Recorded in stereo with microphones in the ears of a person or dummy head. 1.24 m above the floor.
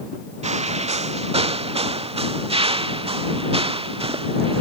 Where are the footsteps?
40° right (ahead or behind); by 4.6 s 30° right (ahead or behind).